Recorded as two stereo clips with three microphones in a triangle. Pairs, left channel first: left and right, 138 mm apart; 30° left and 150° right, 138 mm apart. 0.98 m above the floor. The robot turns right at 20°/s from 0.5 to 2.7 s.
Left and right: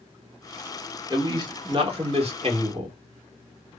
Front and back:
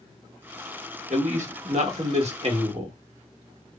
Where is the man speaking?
145° right, 1.1 m; by 3.0 s 115° right, 1.1 m.